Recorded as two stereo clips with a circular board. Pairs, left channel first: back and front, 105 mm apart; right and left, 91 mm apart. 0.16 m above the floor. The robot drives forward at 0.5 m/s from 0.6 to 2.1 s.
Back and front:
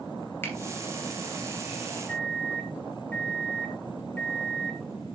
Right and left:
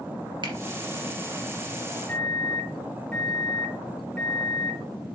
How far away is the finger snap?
About 3 m.